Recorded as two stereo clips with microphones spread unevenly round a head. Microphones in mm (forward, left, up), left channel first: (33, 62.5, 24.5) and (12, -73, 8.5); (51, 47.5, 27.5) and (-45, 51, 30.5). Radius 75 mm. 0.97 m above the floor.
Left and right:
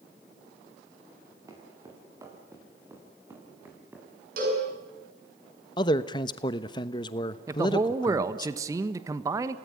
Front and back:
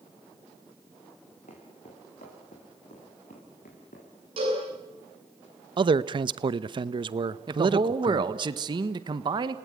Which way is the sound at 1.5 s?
30° right.